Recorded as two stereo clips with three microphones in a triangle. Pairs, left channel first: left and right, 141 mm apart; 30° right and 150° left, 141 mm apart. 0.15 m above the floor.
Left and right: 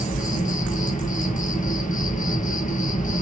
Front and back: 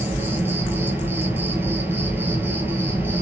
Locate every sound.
0.0 s an insect: 75° left, 1.2 m